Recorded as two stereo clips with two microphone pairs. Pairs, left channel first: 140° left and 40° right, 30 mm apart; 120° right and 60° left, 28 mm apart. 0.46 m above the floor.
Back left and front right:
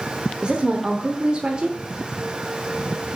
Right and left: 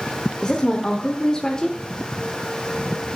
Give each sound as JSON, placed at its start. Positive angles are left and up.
{"t": 0.4, "sound": "a woman speaking", "azimuth_deg": -70, "distance_m": 1.0}